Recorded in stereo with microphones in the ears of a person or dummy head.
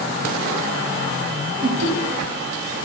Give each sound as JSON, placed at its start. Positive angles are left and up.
{"t": 1.6, "sound": "laughter", "side_deg": -50, "distance_m": 1.4}